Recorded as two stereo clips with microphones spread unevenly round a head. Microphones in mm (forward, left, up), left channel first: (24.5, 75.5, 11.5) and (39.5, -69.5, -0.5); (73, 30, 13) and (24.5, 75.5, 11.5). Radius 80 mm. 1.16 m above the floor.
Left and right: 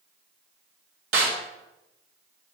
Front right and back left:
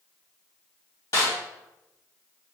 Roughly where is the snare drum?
Right.